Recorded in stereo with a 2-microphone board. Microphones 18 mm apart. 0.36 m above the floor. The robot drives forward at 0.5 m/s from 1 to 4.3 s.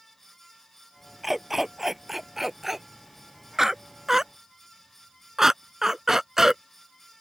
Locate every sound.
1.2 s a dog barking: 10° right (ahead or behind); by 6.6 s 25° right (ahead or behind)